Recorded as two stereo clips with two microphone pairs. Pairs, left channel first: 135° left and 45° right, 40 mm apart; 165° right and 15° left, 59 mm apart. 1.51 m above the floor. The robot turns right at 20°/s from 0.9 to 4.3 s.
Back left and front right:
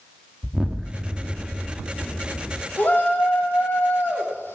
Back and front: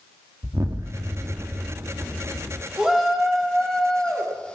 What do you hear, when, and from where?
0.4 s an explosion: 20° left, 1.8 m; by 2.6 s 55° left, 1.8 m
2.8 s a shout: 95° left, 4.5 m; by 4.5 s 125° left, 4.5 m